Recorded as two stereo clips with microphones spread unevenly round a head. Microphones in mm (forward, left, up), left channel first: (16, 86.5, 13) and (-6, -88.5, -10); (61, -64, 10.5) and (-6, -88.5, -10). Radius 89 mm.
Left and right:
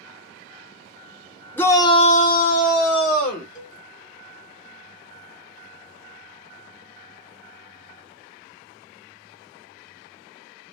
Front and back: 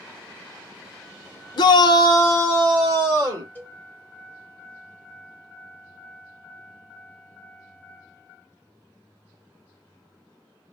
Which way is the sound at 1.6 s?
Straight ahead.